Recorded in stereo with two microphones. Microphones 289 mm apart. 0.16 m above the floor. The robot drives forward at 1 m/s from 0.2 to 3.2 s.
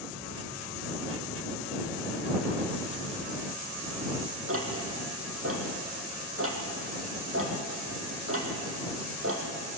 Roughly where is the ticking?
Right.